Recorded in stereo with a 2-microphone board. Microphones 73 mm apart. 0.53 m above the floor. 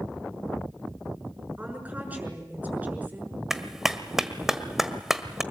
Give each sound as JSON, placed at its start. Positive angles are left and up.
{"t": 1.6, "sound": "a woman speaking", "side_deg": -20, "distance_m": 6.0}
{"t": 3.5, "sound": "a clap", "side_deg": -5, "distance_m": 1.5}